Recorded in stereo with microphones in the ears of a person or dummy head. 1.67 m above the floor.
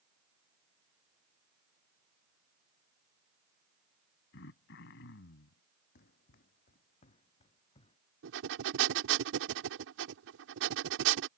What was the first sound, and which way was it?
Throat clearing, 70° left (ahead or behind).